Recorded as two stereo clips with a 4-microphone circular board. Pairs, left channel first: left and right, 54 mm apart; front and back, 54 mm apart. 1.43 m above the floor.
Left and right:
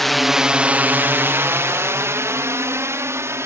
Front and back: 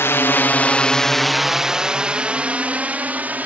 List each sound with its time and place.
0.0 s a drone: 5° left; by 3.5 s 120° right